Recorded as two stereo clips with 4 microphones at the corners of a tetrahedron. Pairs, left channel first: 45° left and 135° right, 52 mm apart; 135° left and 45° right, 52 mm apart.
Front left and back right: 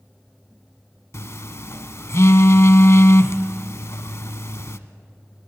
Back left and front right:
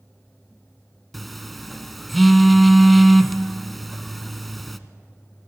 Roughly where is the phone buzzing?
Ahead left.